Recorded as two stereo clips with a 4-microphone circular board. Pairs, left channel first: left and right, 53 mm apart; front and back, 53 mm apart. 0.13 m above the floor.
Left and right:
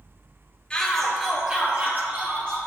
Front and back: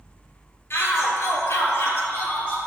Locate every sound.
0.7 s a shout: 20° left, 2.0 m; by 2.6 s 50° right, 3 m